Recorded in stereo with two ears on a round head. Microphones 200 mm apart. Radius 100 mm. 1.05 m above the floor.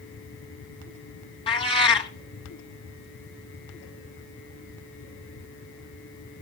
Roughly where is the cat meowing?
Left.